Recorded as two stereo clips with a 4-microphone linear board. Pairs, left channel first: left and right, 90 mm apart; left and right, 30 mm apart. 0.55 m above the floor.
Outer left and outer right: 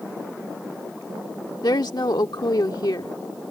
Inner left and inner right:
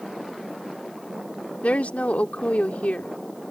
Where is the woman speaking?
50° left (ahead or behind).